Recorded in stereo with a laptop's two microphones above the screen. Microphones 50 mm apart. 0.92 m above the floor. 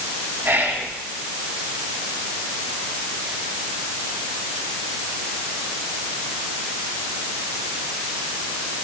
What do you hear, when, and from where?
0.4 s whispering: 45° right (ahead or behind), 1.8 m